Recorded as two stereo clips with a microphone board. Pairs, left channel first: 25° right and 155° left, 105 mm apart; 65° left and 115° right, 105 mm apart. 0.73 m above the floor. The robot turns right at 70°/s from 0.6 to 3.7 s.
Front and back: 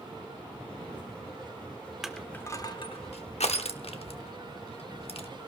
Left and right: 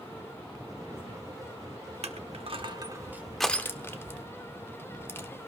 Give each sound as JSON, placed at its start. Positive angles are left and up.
{"t": 2.0, "sound": "crushing", "azimuth_deg": -115, "distance_m": 0.9}